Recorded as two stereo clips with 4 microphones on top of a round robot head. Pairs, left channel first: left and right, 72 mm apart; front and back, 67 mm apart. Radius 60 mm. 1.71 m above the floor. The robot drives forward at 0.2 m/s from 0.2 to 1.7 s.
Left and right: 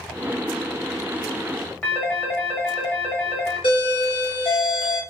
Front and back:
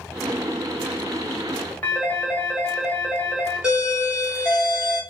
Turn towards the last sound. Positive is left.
turn(degrees=105)